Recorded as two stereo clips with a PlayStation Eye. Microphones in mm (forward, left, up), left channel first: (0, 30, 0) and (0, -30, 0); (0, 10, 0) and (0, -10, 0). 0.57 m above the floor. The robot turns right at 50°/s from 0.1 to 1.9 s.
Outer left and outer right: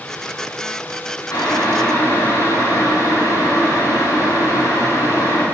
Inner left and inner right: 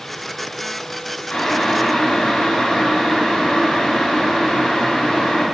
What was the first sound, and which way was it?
Boiling, 70° left (ahead or behind).